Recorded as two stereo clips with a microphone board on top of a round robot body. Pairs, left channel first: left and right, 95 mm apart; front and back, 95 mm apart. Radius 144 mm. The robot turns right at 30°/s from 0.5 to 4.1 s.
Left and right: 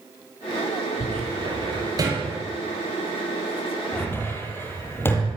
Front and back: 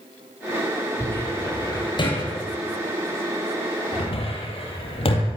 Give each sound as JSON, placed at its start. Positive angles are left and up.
{"t": 1.0, "sound": "a cupboard door", "azimuth_deg": -70, "distance_m": 7.5}